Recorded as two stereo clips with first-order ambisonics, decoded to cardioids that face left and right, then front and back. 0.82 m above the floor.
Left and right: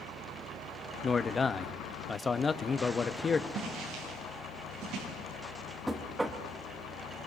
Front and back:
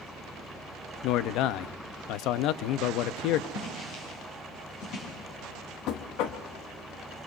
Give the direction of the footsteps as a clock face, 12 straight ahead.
2 o'clock.